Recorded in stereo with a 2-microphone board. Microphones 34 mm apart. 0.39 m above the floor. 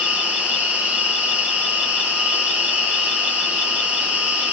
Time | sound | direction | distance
0.0 | an insect | 60° right (ahead or behind) | 2 m